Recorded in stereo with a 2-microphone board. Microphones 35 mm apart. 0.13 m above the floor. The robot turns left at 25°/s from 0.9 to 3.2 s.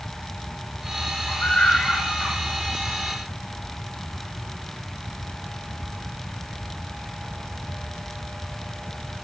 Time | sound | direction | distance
1.3 | a scream | 40° left (ahead or behind) | 9 m